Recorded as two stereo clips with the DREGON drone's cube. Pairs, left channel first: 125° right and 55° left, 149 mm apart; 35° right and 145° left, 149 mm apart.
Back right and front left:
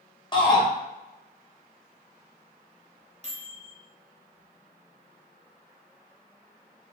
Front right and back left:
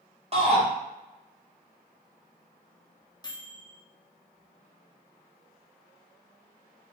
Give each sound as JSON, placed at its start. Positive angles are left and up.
{"t": 0.3, "sound": "a shout", "azimuth_deg": -175, "distance_m": 1.0}
{"t": 3.2, "sound": "a microwave", "azimuth_deg": 25, "distance_m": 0.6}